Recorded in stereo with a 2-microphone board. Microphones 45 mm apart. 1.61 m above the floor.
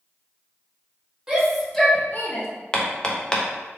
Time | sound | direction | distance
1.3 | a shout | 10° right (ahead or behind) | 1.3 m
2.7 | hammering | 20° left (ahead or behind) | 0.5 m